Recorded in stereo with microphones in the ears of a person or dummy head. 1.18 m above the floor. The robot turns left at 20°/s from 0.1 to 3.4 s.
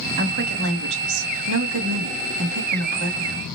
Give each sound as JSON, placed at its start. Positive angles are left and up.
{"t": 0.2, "sound": "a woman speaking", "azimuth_deg": -50, "distance_m": 1.4}